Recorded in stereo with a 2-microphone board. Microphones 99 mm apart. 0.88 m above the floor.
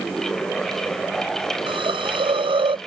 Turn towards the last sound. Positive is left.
turn(degrees=-60)  # may be behind; listen again after turning